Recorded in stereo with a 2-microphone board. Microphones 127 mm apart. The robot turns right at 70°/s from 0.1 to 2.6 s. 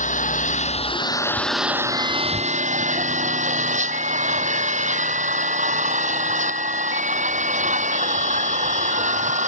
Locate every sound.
0.0 s an engine running: 80° left; by 9.5 s 105° right